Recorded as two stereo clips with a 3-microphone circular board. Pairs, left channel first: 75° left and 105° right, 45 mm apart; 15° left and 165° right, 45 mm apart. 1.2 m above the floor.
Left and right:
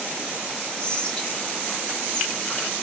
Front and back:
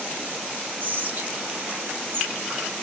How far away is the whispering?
About 1.3 m.